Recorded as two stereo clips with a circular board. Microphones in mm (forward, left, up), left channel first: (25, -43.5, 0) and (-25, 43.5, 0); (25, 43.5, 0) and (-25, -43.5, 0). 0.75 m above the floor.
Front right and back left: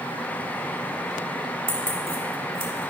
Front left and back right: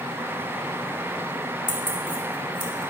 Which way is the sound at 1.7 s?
90° left.